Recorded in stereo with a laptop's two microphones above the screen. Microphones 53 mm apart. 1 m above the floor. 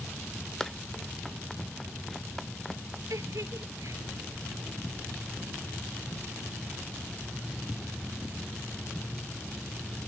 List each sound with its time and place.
0.6 s running footsteps: 10° left (ahead or behind); by 3.0 s 5° left (ahead or behind)
3.1 s a giggle: 80° right